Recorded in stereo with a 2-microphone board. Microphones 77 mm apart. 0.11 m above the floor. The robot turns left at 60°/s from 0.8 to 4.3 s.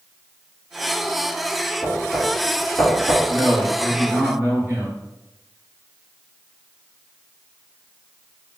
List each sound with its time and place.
1.8 s knocking: 5° left (ahead or behind), 1.3 m; by 3.1 s 30° left (ahead or behind), 1.3 m
3.2 s a man speaking: 20° left, 1.5 m; by 5.0 s 45° right, 1.5 m